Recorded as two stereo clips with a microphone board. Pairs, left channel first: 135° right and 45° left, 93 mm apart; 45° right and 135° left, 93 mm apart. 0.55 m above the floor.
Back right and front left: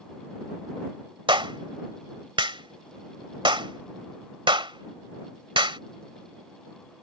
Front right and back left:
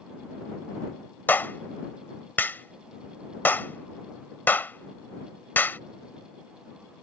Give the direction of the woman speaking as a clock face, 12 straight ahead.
I don't hear a woman speaking.